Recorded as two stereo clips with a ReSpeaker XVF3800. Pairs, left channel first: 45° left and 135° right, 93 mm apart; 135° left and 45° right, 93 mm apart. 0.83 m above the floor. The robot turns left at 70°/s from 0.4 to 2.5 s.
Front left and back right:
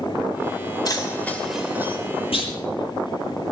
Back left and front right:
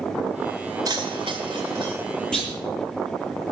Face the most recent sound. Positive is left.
turn(degrees=40)